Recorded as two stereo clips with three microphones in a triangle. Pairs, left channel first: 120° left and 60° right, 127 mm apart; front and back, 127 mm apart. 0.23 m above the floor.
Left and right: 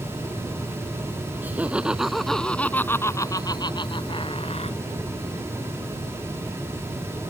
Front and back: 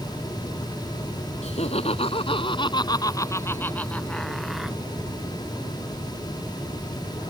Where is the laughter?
15° left; by 4.8 s 95° left.